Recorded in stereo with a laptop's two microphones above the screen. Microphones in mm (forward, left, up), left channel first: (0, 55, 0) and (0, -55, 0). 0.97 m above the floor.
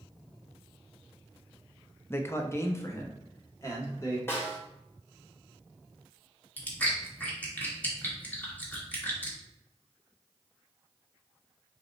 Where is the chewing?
15° left (ahead or behind), 1.5 m.